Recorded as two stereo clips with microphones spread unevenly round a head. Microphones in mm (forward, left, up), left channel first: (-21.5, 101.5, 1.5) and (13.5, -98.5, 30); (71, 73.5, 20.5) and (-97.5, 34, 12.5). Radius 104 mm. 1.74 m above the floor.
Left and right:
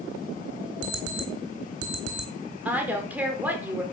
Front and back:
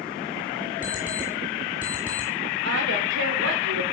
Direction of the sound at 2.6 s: 160° right.